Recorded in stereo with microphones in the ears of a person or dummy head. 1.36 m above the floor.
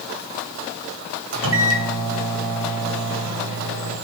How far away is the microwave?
About 1.3 m.